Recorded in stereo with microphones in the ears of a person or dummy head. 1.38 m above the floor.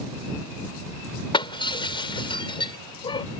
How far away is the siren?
No siren in this recording.